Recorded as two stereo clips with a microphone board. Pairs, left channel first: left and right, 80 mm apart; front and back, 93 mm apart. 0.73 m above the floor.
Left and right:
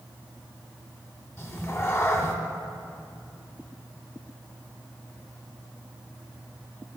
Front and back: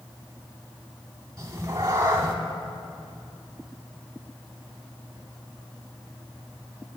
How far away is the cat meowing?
About 0.8 m.